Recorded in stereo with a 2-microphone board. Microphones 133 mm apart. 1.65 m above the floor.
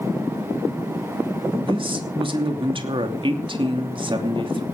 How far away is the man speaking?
About 2.5 m.